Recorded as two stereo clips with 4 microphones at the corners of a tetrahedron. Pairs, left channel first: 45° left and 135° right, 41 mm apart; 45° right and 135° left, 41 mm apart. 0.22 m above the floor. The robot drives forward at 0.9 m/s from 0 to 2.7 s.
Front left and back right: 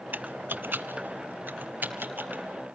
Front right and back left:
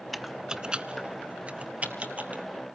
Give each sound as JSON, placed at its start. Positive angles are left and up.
{"t": 0.1, "sound": "typing on a keyboard", "azimuth_deg": -130, "distance_m": 0.5}